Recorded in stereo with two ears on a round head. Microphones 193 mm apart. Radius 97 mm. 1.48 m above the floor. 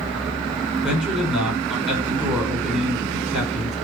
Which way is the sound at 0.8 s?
5° right (ahead or behind).